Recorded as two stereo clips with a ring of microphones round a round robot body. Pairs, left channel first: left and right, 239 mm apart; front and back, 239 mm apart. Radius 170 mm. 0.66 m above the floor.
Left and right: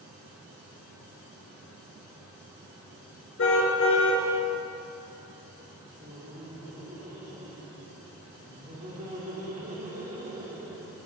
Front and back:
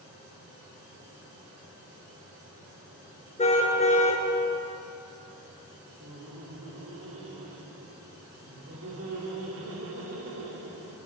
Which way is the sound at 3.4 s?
60° left.